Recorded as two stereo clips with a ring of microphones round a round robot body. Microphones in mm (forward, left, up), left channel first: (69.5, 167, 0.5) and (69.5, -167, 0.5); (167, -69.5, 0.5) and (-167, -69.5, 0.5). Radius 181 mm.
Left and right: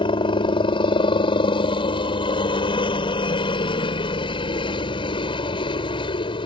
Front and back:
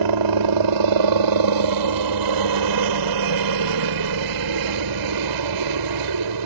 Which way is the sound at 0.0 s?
165° left.